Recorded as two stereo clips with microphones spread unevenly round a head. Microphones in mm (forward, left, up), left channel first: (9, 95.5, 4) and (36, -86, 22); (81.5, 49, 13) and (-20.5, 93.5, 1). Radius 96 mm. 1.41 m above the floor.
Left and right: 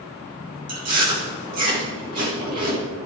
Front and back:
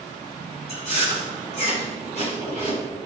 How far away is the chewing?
About 4.5 m.